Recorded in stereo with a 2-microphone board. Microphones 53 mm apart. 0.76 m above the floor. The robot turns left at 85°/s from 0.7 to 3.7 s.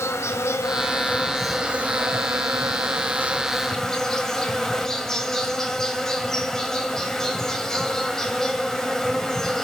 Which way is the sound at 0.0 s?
65° left.